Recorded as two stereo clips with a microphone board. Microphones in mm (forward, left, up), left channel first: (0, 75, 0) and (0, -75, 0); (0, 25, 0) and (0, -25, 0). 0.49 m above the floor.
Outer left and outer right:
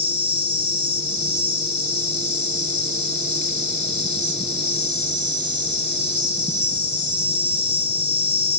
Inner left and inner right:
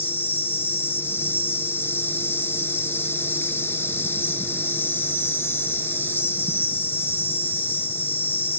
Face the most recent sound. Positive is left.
turn(degrees=50)  # may be behind; listen again after turning